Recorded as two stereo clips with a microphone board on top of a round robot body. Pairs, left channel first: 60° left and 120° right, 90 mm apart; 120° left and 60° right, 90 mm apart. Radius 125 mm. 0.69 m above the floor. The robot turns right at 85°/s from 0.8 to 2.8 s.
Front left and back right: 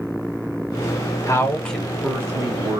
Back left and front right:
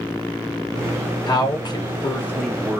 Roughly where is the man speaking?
Left.